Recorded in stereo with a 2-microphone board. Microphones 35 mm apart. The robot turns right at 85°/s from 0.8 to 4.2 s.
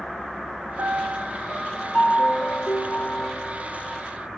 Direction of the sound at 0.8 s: 60° right.